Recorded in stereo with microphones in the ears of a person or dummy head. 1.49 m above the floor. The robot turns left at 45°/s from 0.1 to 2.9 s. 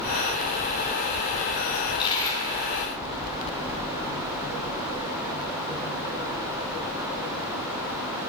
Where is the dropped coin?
50° left, 2.5 m; by 2.4 s 15° left, 2.5 m.